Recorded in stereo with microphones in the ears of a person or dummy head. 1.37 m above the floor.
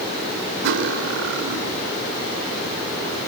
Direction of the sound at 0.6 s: 75° right (ahead or behind).